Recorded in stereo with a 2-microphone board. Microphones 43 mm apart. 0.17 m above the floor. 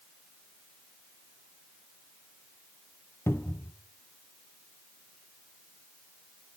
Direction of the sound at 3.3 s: 75° left (ahead or behind).